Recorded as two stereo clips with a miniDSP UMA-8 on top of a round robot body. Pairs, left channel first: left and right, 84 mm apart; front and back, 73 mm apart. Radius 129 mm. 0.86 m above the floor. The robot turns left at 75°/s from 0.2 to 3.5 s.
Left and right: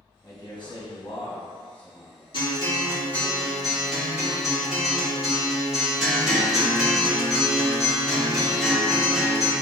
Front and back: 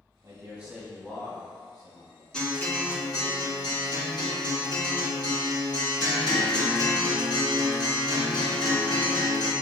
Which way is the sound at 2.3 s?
80° left.